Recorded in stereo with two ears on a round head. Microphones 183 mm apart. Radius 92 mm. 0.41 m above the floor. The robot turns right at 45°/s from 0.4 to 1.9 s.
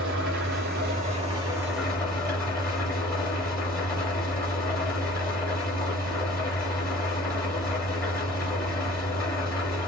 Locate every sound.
0.0 s an engine running: 60° right, 2.5 m; by 9.9 s 10° left, 2.5 m